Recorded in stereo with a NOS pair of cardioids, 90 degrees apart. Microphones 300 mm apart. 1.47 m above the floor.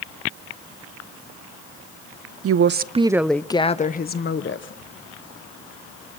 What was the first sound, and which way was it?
A woman speaking, 50° right.